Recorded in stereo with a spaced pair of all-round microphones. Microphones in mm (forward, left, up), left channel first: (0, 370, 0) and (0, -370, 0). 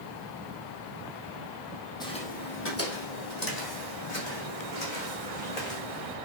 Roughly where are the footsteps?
Centre.